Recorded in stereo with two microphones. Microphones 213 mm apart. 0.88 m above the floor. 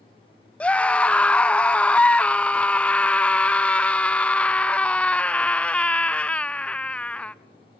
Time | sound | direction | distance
0.6 | a scream | 5° left (ahead or behind) | 0.5 m